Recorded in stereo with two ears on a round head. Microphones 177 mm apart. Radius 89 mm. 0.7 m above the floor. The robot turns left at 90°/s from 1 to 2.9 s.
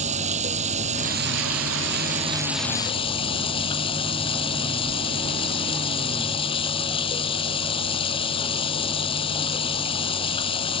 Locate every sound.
0.0 s running water: 35° right; by 10.8 s 150° left